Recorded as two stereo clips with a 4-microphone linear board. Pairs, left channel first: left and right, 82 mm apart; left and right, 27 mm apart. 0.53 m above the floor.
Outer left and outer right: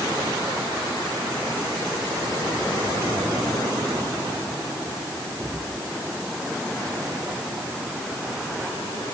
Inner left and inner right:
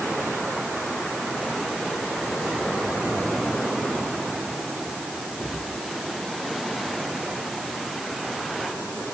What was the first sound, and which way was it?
Only background noise.